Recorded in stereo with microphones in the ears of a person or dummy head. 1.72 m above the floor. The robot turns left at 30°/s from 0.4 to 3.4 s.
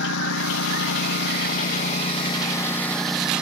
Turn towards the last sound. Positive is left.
turn(degrees=-5)  # may be behind; listen again after turning